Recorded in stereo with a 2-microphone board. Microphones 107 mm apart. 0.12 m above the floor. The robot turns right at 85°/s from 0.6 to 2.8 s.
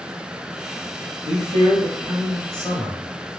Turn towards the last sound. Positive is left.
turn(degrees=25)